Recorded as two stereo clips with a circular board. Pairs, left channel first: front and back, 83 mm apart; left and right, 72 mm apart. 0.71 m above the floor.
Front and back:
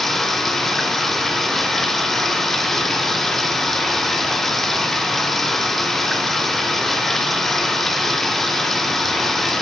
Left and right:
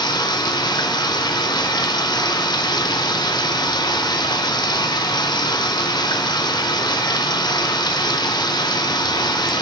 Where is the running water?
85° left, 0.8 m.